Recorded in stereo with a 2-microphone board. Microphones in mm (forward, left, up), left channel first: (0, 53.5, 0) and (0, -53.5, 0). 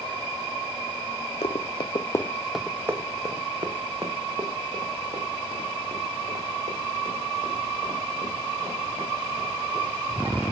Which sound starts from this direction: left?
Running footsteps, at 1.4 s.